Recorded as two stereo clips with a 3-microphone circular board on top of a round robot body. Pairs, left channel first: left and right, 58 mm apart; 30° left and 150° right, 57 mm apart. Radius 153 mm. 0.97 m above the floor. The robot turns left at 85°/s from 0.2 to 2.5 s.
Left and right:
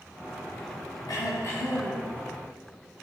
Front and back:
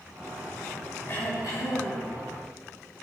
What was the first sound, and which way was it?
Throat clearing, 85° left.